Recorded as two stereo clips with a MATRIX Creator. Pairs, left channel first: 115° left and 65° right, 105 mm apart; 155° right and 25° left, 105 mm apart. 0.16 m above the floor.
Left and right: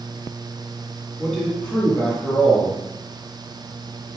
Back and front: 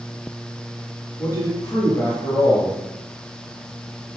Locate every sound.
1.2 s a man speaking: 165° right, 1.8 m